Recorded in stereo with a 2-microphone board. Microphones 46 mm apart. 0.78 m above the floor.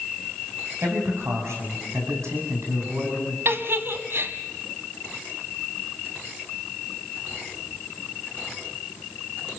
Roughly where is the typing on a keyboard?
No typing on a keyboard in this recording.